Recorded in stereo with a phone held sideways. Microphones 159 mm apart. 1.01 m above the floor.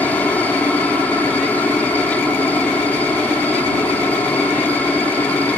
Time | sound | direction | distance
0.0 | a helicopter | 10° left (ahead or behind) | ?